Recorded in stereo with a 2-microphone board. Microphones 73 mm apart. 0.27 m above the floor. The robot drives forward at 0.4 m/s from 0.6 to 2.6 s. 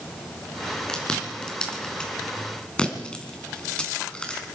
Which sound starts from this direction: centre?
Chewing, at 0.9 s.